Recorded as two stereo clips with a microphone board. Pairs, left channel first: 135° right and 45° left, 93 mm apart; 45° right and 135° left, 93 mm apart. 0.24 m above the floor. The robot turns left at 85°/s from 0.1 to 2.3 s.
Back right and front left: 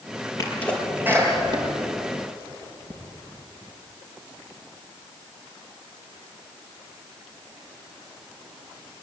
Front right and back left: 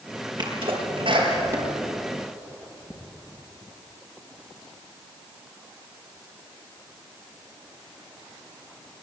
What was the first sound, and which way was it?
A sneeze, 170° left.